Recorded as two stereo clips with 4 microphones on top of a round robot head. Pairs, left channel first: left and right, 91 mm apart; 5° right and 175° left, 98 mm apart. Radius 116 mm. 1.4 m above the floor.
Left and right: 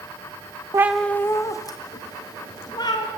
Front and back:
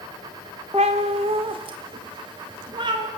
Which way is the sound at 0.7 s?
125° right.